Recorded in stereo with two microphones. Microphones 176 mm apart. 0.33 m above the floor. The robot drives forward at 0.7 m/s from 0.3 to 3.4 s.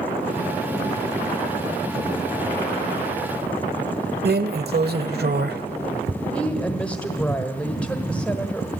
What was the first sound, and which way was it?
A drawer, 70° right (ahead or behind).